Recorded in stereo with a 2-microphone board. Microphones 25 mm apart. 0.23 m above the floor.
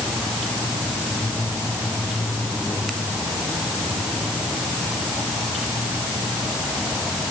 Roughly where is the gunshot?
No gunshot in this recording.